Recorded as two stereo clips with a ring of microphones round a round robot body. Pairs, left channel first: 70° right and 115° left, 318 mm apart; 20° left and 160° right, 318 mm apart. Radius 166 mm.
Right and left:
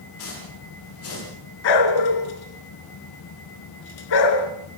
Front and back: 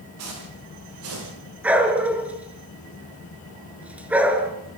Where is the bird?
No bird in this recording.